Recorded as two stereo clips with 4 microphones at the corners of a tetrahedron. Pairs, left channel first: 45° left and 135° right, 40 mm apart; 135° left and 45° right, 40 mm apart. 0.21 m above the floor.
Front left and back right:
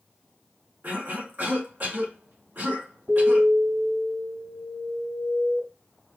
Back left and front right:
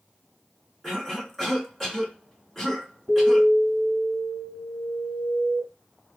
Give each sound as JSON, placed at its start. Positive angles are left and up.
{"t": 0.8, "sound": "a cough", "azimuth_deg": -140, "distance_m": 2.5}
{"t": 3.1, "sound": "an alarm", "azimuth_deg": -140, "distance_m": 3.0}